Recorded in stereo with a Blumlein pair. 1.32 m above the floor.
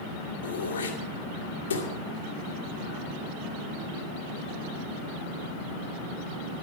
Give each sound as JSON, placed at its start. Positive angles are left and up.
{"t": 0.4, "sound": "throat clearing", "azimuth_deg": 65, "distance_m": 2.5}